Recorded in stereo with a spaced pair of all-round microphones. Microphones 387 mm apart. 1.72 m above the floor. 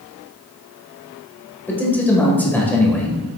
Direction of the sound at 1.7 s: 5° left (ahead or behind).